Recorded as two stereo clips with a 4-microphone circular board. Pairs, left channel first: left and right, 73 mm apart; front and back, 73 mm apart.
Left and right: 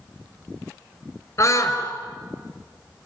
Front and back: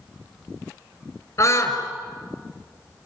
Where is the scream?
45° left, 4.5 m.